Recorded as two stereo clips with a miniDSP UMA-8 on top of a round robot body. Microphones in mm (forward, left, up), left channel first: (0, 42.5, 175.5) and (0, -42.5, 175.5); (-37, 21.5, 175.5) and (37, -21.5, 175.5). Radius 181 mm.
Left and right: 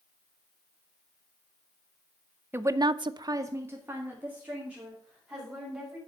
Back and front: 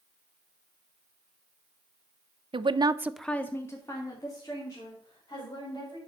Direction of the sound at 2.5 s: 25° right.